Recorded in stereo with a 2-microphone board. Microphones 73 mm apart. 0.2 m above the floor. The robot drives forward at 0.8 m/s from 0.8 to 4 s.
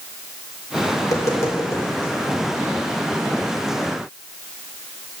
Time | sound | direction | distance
1.0 | tapping | 45° left (ahead or behind) | 2.5 m